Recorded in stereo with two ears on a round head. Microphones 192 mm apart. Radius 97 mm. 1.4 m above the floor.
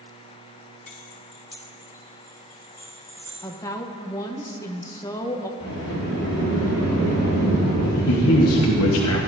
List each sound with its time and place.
0.9 s keys jangling: 35° left (ahead or behind), 0.9 m; by 3.3 s 10° left (ahead or behind), 3.5 m
3.4 s a woman speaking: 15° left (ahead or behind), 0.8 m
5.6 s a sliding door: 75° left (ahead or behind), 4 m
8.1 s a man speaking: 85° left, 1.2 m